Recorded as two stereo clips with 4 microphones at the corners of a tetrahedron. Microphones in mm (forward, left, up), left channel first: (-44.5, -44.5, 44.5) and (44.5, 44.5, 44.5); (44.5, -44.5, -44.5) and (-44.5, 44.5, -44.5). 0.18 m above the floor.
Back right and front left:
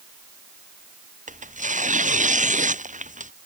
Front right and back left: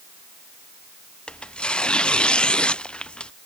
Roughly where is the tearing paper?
Ahead left.